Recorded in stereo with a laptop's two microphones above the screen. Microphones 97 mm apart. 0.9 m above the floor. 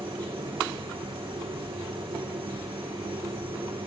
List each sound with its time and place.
0.0 s a machine running: 70° right (ahead or behind), 1.9 m